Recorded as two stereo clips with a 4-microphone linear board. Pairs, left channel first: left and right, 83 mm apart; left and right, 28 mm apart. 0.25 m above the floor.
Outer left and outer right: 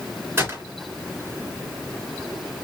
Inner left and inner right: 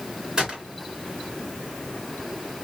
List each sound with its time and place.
0.4 s a gunshot: 30° right (ahead or behind), 2 m